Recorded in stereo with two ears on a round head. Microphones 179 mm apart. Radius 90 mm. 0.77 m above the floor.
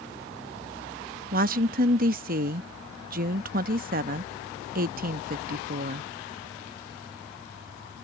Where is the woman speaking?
45° right (ahead or behind).